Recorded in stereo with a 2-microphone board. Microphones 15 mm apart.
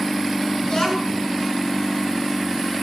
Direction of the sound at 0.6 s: 40° left (ahead or behind).